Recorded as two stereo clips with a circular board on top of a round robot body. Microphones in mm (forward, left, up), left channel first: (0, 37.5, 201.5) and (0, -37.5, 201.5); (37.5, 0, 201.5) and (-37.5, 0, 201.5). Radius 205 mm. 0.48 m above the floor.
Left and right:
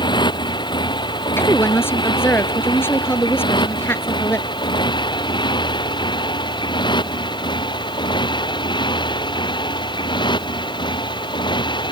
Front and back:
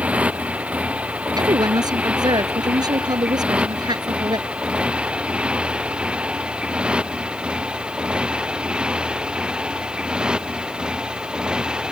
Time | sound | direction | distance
0.0 | a motorcycle | 105° left | ?
1.4 | a woman speaking | 150° left | ?